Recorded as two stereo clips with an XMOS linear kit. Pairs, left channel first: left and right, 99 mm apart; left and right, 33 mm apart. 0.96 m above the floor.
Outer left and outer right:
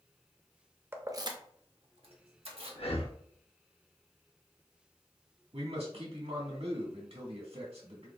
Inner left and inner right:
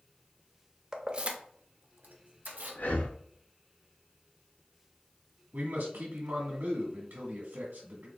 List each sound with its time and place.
0.9 s keys jangling: 20° right (ahead or behind), 0.5 m; by 2.8 s 75° right (ahead or behind), 1.2 m
2.8 s breathing: 80° left, 0.6 m
5.5 s a man speaking: 85° right, 1.5 m